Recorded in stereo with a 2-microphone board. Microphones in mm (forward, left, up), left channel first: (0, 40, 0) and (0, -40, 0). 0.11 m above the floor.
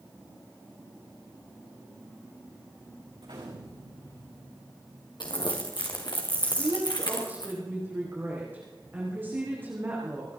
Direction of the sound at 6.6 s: 25° right (ahead or behind).